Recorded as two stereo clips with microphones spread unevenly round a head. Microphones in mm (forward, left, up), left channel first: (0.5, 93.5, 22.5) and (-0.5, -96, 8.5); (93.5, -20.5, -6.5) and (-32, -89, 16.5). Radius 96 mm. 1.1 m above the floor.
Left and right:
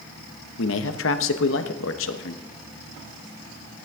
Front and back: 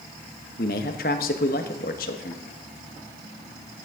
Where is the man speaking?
70° left, 0.9 m.